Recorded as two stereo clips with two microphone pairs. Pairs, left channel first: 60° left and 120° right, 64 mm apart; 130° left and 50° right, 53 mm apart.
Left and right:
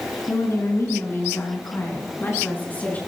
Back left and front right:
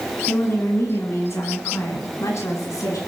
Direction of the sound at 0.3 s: 95° left.